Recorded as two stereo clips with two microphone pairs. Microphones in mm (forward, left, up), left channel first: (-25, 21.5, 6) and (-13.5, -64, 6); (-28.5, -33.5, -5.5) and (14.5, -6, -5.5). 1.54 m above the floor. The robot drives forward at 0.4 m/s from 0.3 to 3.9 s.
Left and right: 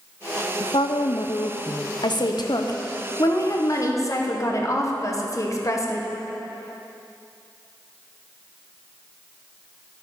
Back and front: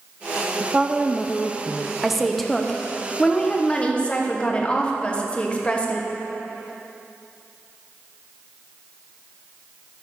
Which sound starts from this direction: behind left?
A woman speaking, at 2.0 s.